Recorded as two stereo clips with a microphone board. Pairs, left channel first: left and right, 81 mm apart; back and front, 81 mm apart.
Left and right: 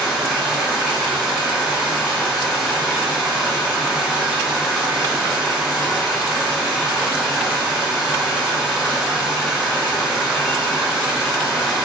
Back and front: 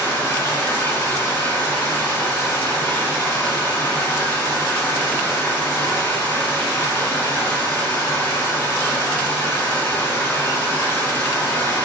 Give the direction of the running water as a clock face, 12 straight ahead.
6 o'clock.